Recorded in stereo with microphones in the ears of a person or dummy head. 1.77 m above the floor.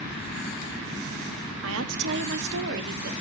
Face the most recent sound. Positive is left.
turn(degrees=-55)  # may be behind; listen again after turning